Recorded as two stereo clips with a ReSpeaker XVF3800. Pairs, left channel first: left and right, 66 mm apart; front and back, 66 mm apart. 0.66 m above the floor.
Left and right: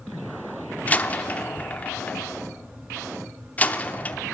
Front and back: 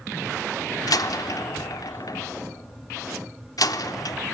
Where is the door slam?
20° left, 0.7 m.